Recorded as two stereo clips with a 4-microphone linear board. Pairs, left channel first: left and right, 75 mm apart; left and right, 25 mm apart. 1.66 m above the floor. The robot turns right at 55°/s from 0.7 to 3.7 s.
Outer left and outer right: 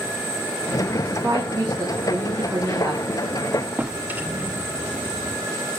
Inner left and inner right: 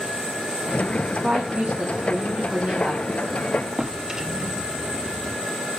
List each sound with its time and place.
1.0 s a woman speaking: 145° right, 2.5 m; by 3.0 s 35° right, 2.5 m
3.8 s a drawer: 20° right (ahead or behind), 1.1 m